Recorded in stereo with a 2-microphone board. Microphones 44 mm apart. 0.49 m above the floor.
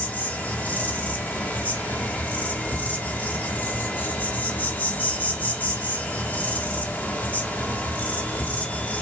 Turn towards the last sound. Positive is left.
turn(degrees=50)  # may be behind; listen again after turning